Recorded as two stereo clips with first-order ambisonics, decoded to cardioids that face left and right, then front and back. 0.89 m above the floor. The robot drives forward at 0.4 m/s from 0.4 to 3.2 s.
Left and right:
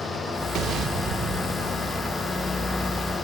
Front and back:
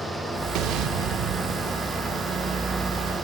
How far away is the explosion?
About 1.2 m.